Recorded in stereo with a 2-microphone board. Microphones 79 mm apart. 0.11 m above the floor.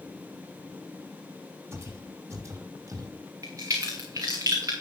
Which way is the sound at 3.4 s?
45° right (ahead or behind).